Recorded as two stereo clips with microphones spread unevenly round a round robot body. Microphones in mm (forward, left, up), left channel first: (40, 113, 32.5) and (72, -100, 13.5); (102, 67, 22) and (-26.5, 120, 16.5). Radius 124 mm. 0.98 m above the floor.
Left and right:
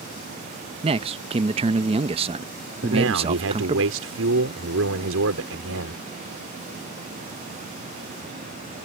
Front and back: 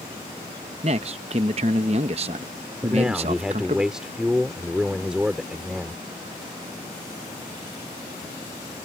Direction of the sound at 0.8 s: 145° right.